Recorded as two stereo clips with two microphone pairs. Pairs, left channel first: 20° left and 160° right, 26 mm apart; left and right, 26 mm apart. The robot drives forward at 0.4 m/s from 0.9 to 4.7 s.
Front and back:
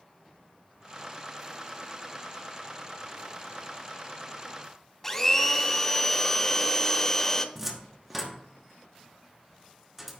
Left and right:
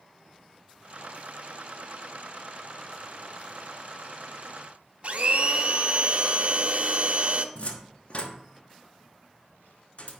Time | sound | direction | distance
5.0 | a blender | 50° right | 0.7 m
7.5 | a cupboard door | 125° left | 1.1 m